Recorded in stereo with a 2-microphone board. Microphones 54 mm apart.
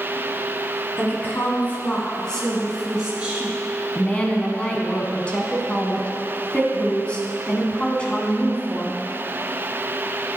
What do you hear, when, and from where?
1.0 s a woman speaking: 45° left (ahead or behind), 1.7 m; by 3.6 s 20° right (ahead or behind), 1.5 m
4.0 s a woman speaking: 20° left (ahead or behind), 1.1 m